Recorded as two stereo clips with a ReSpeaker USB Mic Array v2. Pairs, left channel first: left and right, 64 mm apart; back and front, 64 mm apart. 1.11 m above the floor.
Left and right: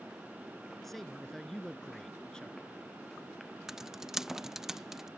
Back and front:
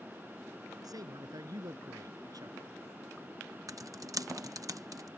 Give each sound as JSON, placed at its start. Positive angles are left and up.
{"t": 0.8, "sound": "a man speaking", "azimuth_deg": 5}
{"t": 3.7, "sound": "typing on a keyboard", "azimuth_deg": -5}